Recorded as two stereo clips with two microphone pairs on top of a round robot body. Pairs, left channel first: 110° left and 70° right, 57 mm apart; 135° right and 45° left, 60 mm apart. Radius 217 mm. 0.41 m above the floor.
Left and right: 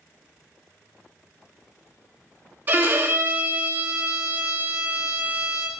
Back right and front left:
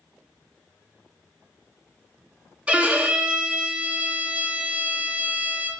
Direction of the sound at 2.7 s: 15° right.